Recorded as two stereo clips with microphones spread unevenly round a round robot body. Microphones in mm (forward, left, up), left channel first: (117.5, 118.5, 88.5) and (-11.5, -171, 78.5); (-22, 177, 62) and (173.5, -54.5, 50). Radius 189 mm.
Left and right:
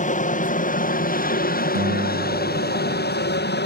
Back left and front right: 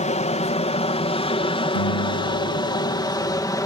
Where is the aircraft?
95° left; by 3.7 s 60° left.